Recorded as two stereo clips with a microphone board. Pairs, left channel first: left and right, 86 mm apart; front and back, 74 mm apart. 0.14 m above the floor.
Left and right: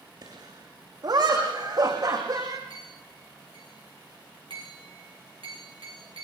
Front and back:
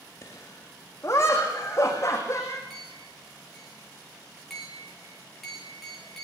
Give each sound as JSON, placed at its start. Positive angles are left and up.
{"t": 0.2, "sound": "laughter", "azimuth_deg": -55, "distance_m": 8.5}
{"t": 2.7, "sound": "a clink", "azimuth_deg": -90, "distance_m": 10.0}